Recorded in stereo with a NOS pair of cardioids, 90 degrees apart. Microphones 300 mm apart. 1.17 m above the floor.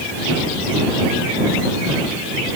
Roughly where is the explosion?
No explosion in this recording.